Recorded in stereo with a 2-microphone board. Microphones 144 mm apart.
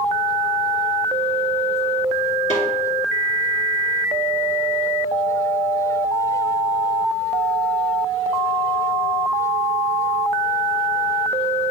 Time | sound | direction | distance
2.5 | a snare drum | 55° left (ahead or behind) | 2.5 m